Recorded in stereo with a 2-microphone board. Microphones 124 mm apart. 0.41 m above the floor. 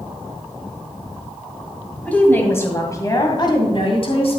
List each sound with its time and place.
2.0 s a woman speaking: 10° left (ahead or behind), 2.5 m; by 4.4 s 55° left (ahead or behind), 2.5 m